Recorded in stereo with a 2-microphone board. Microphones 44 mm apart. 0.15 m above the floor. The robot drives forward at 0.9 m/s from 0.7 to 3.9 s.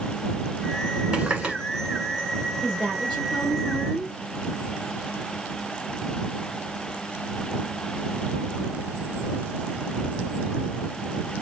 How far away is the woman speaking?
About 3 m.